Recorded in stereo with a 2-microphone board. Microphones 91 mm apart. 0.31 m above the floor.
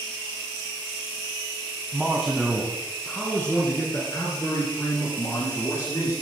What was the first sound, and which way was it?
A man speaking, 10° right (ahead or behind).